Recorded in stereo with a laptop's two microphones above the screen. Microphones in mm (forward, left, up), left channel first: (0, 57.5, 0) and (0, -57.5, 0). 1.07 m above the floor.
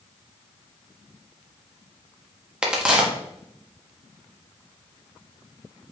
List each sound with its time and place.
2.6 s a crack: 10° right (ahead or behind), 0.6 m